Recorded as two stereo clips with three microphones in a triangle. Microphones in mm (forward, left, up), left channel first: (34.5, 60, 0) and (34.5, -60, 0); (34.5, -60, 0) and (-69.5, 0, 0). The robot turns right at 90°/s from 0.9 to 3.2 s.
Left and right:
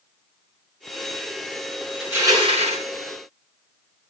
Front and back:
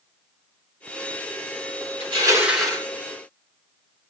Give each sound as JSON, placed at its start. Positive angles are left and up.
{"t": 2.0, "sound": "crushing", "azimuth_deg": -175, "distance_m": 5.5}